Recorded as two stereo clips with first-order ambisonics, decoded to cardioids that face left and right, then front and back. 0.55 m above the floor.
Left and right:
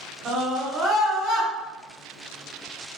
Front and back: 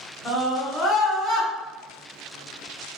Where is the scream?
35° right, 1.2 m; by 1.5 s 125° left, 1.0 m.